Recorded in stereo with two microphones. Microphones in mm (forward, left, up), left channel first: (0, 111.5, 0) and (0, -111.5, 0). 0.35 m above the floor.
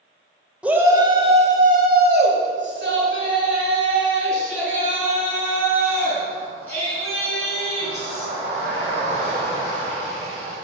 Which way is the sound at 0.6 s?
5° right (ahead or behind).